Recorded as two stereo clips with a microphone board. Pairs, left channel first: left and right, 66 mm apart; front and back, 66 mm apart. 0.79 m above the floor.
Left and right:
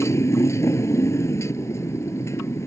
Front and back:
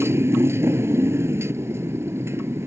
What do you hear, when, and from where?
0.0 s a motorcycle: 130° left